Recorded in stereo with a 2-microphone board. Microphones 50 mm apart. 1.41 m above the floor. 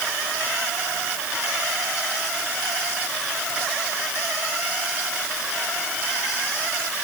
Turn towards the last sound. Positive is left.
No sound to turn to.